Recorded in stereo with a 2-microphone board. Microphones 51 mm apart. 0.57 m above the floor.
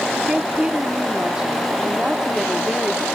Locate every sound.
0.1 s a woman speaking: 20° right (ahead or behind)